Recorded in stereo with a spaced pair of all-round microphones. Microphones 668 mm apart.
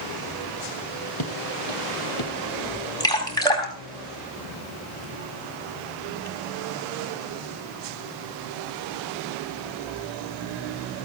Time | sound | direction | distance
1.2 | footsteps | 35° left (ahead or behind) | 3.5 m
3.0 | dripping | 5° left (ahead or behind) | 4 m